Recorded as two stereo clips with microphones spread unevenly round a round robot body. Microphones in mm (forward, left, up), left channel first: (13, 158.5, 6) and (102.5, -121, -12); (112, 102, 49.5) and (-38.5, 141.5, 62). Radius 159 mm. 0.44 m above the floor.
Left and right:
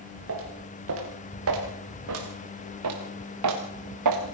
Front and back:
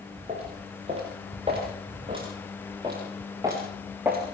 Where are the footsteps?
125° right, 5 m; by 4.2 s 110° right, 3 m.